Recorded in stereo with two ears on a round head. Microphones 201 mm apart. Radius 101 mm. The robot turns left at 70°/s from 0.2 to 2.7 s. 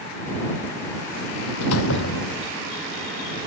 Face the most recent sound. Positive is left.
turn(degrees=5)